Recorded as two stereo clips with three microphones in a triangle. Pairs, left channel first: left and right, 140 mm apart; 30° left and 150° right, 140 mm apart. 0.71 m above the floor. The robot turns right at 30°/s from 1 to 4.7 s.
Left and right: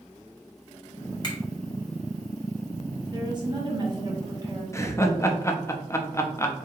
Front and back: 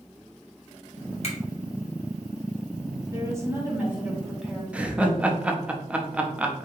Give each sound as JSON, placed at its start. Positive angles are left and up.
{"t": 1.2, "sound": "a finger snap", "azimuth_deg": 45, "distance_m": 1.4}
{"t": 3.1, "sound": "a woman speaking", "azimuth_deg": -105, "distance_m": 1.0}
{"t": 4.7, "sound": "laughter", "azimuth_deg": 140, "distance_m": 0.6}